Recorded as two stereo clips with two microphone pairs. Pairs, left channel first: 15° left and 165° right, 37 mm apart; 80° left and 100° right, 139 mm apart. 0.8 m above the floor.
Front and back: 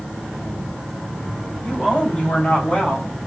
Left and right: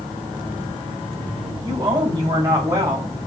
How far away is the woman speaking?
About 4.5 m.